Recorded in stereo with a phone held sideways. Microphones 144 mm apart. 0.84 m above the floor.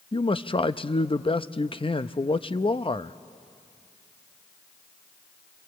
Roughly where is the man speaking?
Left.